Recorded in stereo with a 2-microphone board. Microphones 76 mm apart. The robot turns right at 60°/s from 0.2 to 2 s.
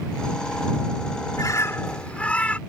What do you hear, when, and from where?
1.4 s a bird: 125° left; by 2.6 s 165° left